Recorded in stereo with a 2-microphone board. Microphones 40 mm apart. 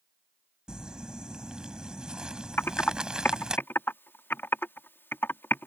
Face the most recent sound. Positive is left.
turn(degrees=75)  # may be behind; listen again after turning